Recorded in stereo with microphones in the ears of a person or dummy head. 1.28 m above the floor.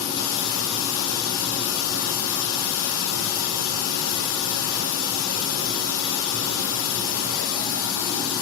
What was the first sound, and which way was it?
Running water, 85° left.